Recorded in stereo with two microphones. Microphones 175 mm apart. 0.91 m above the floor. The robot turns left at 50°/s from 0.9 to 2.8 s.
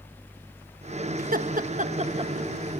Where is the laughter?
55° right (ahead or behind), 1.0 m; by 2.3 s 25° right (ahead or behind), 1.0 m.